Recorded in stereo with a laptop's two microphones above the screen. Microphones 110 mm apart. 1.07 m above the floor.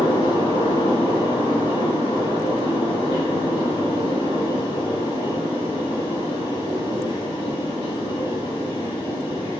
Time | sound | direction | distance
0.0 | a fan | 65° left (ahead or behind) | 2 m